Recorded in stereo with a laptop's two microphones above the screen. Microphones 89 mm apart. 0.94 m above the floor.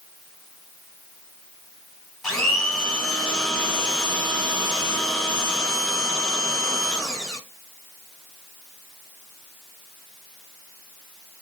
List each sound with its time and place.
2.2 s a blender: 10° left (ahead or behind), 1.4 m